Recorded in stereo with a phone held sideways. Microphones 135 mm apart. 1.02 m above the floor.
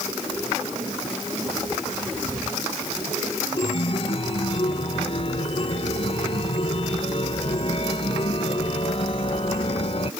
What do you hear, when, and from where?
3.6 s a chime: 45° left (ahead or behind)